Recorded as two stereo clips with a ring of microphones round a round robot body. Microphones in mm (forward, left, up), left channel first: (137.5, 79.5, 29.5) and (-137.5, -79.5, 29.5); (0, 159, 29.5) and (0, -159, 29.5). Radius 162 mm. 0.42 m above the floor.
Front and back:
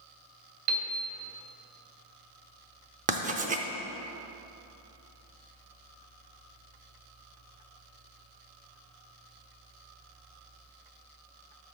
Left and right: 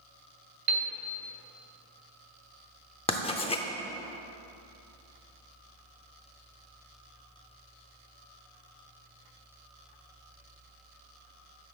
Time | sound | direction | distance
0.7 | a piano | 115° right | 1.4 m
3.1 | writing | 155° left | 0.7 m